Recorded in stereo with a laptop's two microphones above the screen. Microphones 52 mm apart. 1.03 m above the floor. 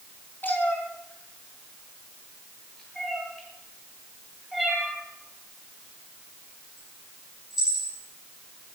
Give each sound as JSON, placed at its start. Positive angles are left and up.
{"t": 0.4, "sound": "a cat meowing", "side_deg": 40, "distance_m": 4.0}